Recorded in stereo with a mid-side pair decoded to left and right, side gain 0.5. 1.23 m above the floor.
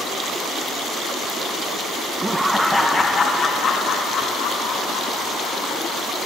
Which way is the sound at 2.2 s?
15° right.